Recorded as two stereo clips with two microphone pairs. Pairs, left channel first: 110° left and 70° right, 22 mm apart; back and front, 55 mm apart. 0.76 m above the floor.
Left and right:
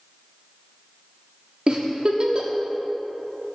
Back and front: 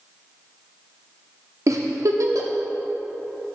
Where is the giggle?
25° right, 0.6 m.